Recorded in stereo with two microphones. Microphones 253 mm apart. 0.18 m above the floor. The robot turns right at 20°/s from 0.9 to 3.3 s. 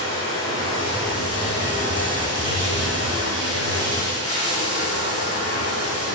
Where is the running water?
60° left, 2.5 m; by 6.2 s 105° left, 2.5 m.